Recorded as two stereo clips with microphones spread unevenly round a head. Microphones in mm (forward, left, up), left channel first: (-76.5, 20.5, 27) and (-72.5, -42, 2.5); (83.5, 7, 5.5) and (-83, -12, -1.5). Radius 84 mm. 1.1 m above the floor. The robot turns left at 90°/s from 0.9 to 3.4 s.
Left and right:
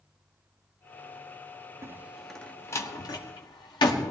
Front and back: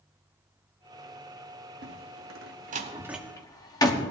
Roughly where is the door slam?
Behind right.